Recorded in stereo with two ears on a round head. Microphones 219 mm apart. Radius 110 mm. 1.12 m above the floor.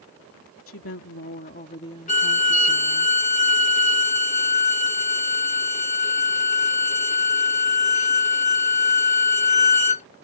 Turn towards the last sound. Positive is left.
turn(degrees=30)  # may be behind; listen again after turning